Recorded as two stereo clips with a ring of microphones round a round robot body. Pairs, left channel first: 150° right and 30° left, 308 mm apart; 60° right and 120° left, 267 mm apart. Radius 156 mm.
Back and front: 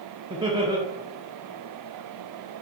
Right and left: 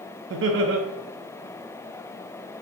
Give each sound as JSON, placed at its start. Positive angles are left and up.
{"t": 0.3, "sound": "laughter", "azimuth_deg": 100, "distance_m": 0.6}